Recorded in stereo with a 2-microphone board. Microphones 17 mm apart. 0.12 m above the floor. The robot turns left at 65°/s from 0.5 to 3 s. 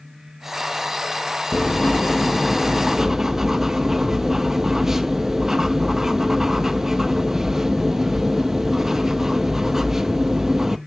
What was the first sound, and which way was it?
Writing, 70° left.